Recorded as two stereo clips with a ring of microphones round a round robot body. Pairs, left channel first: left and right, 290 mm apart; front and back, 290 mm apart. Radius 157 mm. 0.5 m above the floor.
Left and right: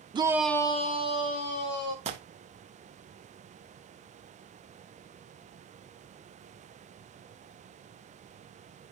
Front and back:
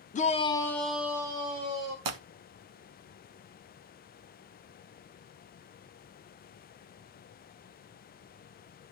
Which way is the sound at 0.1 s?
35° right.